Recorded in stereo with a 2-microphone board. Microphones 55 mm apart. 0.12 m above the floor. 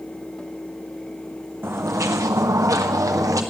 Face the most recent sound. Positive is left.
turn(degrees=-85)